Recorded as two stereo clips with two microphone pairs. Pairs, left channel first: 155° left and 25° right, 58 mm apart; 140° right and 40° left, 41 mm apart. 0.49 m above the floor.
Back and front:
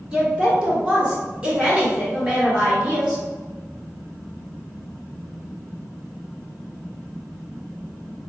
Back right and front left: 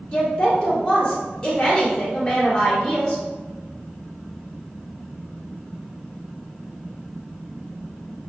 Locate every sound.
0.1 s a woman speaking: 90° right, 1.9 m